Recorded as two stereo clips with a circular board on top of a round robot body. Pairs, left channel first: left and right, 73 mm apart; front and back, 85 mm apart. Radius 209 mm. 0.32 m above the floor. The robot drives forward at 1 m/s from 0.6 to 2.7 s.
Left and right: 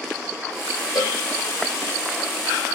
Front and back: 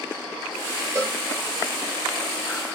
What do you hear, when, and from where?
0.9 s a cowbell: 120° left, 5 m; by 1.2 s 125° left, 5 m